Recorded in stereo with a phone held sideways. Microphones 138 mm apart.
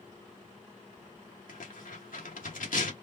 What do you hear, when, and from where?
1.5 s tearing paper: 80° left, 1.8 m